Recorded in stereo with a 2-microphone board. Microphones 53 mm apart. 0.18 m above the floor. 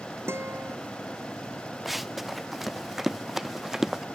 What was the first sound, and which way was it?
A guitar, 50° right (ahead or behind).